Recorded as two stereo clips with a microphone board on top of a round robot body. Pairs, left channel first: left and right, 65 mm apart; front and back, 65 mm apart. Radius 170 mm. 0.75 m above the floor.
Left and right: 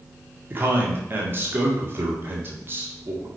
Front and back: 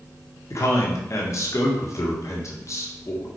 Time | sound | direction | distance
0.5 | a man speaking | 35° right | 2 m